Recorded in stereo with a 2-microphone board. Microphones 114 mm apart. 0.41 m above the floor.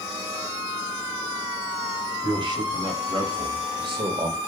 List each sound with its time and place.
2.2 s a man speaking: 40° right (ahead or behind), 2.5 m; by 4.4 s 45° right (ahead or behind), 1.5 m